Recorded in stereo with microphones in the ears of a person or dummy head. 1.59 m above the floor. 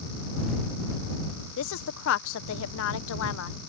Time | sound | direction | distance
1.6 | a woman speaking | 70° left (ahead or behind) | ?